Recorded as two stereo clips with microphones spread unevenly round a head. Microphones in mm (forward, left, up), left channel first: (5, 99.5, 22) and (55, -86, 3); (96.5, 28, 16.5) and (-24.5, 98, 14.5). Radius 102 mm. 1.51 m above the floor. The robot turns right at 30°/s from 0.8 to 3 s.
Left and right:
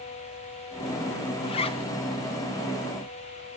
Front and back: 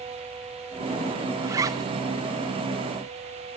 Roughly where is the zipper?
Left.